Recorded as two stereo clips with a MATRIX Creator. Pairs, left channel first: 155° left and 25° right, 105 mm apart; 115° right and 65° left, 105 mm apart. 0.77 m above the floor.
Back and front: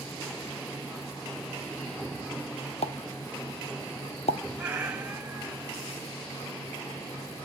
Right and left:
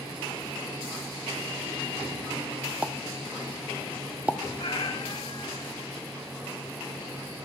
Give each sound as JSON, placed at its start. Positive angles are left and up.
{"t": 2.8, "sound": "a pop", "azimuth_deg": 145, "distance_m": 0.6}
{"t": 4.6, "sound": "a cat meowing", "azimuth_deg": -100, "distance_m": 1.4}